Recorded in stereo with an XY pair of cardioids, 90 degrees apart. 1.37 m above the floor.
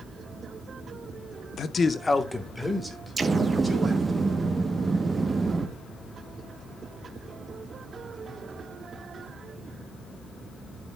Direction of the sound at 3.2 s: 35° right.